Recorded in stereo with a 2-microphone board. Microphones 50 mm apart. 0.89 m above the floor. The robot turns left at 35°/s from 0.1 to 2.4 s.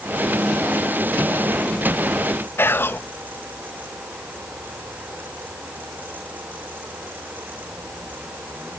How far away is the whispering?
About 0.5 m.